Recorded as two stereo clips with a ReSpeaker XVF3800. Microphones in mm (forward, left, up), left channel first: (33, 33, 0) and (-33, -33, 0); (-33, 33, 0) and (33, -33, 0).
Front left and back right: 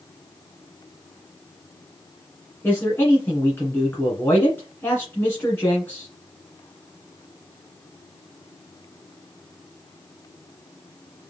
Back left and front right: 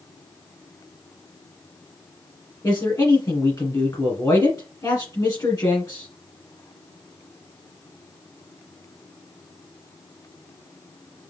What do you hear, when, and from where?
2.6 s a man speaking: 105° left, 1.6 m